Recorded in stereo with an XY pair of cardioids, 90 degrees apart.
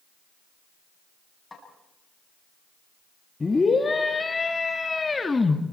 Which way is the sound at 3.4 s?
25° left.